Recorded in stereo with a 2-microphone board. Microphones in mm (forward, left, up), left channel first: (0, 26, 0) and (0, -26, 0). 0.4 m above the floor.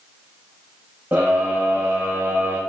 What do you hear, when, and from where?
1.1 s a scream: 35° right (ahead or behind), 2.5 m; by 2.6 s 55° right (ahead or behind), 3 m